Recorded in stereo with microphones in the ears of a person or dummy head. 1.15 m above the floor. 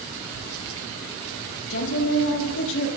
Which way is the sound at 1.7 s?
75° left (ahead or behind).